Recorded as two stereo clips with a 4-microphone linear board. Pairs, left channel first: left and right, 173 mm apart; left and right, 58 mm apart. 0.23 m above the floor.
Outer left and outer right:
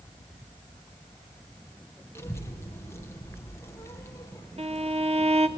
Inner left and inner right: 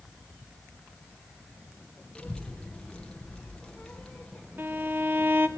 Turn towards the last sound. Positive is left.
turn(degrees=-35)  # may be behind; listen again after turning